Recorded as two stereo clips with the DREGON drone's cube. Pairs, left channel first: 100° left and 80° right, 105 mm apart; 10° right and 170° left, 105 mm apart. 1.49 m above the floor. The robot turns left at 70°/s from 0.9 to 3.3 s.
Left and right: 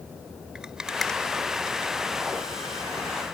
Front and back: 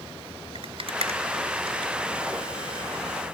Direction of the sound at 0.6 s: 160° right.